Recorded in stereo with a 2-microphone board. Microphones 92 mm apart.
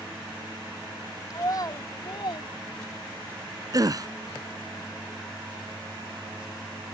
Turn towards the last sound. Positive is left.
turn(degrees=-40)  # may be behind; listen again after turning